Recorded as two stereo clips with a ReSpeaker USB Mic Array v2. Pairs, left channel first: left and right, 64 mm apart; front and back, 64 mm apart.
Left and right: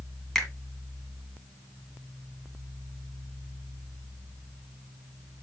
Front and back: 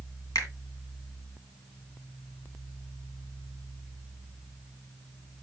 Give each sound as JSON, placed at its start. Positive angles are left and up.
{"t": 0.3, "sound": "a finger snap", "azimuth_deg": 10, "distance_m": 1.9}